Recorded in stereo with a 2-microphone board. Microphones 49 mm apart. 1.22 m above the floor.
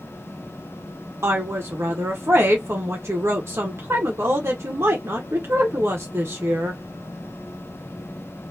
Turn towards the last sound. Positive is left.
turn(degrees=-60)  # may be behind; listen again after turning